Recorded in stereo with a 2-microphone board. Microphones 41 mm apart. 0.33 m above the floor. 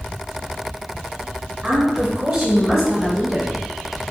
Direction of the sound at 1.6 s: 15° right (ahead or behind).